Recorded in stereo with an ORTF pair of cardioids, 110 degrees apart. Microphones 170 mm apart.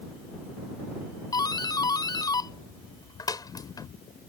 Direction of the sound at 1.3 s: 25° left.